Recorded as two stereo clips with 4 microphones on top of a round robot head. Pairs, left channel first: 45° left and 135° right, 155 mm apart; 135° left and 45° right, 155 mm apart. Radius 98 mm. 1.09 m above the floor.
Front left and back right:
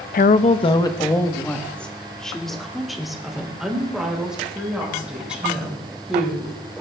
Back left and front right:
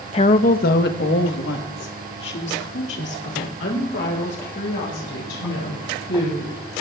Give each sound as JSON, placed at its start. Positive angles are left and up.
{"t": 0.1, "sound": "a woman speaking", "azimuth_deg": 80, "distance_m": 0.6}